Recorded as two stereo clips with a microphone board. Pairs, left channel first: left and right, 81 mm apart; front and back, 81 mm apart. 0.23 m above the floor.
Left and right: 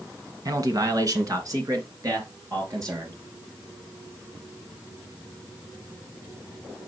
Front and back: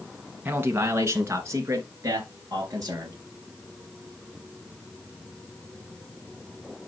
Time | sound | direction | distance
0.5 | a man speaking | 120° right | 1.9 m